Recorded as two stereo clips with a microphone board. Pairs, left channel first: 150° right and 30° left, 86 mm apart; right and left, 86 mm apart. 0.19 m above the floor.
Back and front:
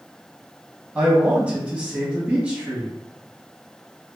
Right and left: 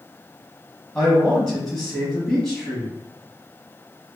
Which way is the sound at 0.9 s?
20° right.